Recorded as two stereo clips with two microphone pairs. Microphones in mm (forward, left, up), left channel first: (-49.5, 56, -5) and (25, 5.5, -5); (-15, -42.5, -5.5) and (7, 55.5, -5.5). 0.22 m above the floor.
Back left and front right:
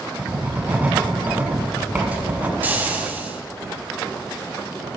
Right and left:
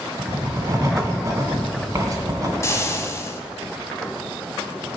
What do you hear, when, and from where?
0.2 s writing: 35° left, 1.6 m
2.6 s frying: 80° right, 1.2 m